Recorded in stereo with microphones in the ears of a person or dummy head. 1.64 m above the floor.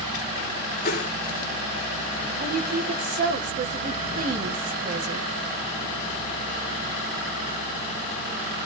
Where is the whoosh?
60° left (ahead or behind), 3 m.